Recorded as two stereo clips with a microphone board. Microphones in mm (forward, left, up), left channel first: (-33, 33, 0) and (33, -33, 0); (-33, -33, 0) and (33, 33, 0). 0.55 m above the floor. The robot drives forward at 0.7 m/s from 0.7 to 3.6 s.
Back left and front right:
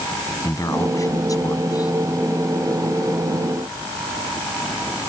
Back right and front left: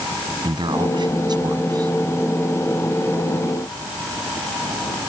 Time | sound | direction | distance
0.4 | a man speaking | 80° left | ?